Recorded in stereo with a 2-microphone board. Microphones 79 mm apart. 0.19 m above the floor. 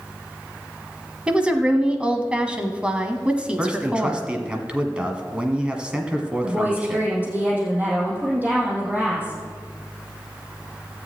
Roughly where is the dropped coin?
No dropped coin in this recording.